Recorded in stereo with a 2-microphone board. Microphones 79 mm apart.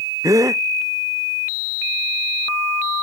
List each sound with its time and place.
0.2 s a gasp: 45° right (ahead or behind)